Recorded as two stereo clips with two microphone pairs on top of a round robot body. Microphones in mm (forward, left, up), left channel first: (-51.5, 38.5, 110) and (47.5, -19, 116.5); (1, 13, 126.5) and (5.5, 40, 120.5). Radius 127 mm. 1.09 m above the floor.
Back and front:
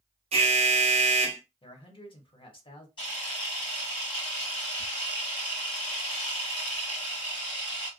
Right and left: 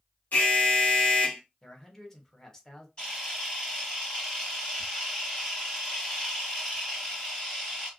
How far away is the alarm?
About 0.5 m.